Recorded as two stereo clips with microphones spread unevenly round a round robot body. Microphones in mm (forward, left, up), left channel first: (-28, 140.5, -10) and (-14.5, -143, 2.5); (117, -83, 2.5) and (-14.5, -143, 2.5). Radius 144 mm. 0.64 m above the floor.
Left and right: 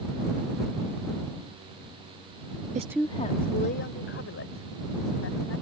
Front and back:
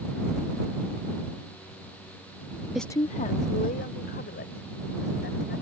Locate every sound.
2.8 s a woman speaking: 80° right; by 5.6 s 45° left